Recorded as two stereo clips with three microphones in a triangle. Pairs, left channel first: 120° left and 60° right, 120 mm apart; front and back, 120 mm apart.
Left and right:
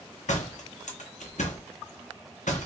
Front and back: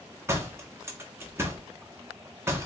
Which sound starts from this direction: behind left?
A door slam, at 0.3 s.